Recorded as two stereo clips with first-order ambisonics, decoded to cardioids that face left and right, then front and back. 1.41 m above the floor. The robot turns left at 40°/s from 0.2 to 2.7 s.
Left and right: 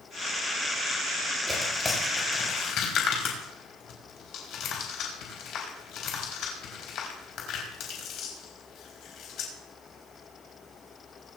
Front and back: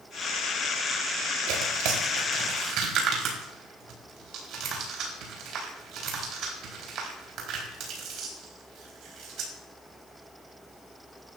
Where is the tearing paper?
175° right, 4 m; by 9.5 s 135° left, 4 m.